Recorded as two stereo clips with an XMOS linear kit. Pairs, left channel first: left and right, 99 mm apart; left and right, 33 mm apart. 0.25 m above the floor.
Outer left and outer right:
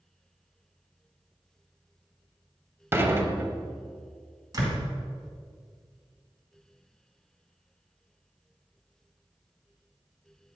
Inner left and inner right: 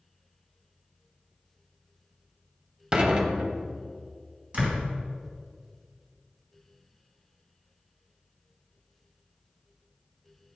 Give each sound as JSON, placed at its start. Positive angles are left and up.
{"t": 2.9, "sound": "dishes clattering", "side_deg": -25, "distance_m": 0.6}
{"t": 4.5, "sound": "a door slam", "side_deg": -40, "distance_m": 1.8}